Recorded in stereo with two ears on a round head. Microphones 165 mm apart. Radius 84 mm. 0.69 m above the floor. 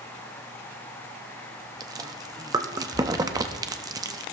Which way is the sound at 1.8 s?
20° right (ahead or behind).